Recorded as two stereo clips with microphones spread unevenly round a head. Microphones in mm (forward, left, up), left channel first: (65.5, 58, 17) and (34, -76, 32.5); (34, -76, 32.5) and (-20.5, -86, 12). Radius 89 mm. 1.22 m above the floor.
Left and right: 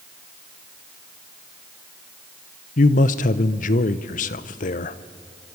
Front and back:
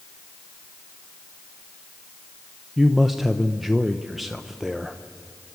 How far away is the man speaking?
About 0.7 m.